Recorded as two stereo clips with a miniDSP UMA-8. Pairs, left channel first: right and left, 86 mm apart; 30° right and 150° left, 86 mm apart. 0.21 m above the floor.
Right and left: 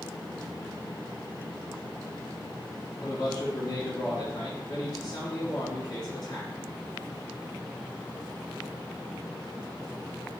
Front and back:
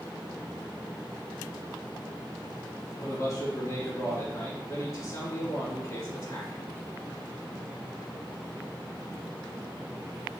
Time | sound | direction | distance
3.0 | a man speaking | 75° right | 2.0 m